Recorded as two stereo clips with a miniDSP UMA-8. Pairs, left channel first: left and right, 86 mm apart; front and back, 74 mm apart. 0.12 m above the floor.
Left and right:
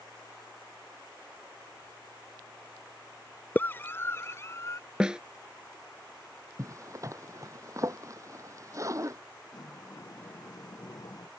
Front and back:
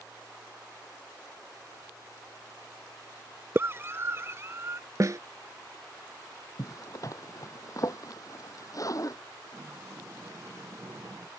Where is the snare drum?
165° right.